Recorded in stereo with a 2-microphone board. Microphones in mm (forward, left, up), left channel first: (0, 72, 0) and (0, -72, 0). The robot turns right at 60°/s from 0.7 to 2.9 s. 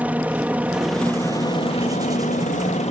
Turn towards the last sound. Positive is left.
turn(degrees=120)